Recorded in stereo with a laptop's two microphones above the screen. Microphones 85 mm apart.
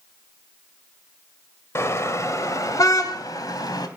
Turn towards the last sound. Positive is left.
turn(degrees=50)  # may be behind; listen again after turning